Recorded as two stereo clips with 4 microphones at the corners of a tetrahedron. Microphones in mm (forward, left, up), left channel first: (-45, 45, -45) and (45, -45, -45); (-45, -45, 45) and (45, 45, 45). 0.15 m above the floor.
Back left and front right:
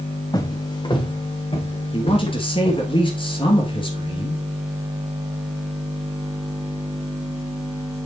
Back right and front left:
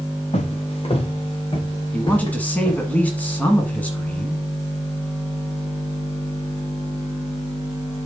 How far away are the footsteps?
About 1.6 m.